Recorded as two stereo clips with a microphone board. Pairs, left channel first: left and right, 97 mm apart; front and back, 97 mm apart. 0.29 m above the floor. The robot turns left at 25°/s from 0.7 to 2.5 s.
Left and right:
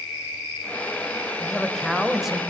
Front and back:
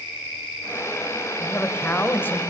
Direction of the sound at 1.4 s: 10° left.